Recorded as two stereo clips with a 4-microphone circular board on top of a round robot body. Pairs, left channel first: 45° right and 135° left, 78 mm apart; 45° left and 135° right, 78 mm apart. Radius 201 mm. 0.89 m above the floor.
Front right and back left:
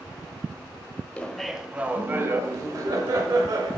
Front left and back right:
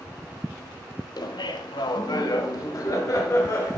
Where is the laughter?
25° left, 0.7 m; by 3.8 s 100° left, 1.7 m.